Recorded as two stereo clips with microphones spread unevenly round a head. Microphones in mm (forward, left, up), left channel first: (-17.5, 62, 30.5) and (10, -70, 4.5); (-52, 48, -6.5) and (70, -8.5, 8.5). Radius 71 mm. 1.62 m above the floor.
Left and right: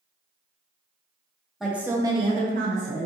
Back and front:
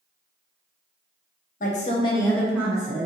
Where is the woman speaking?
170° right, 0.9 m; by 3.0 s 65° right, 0.9 m.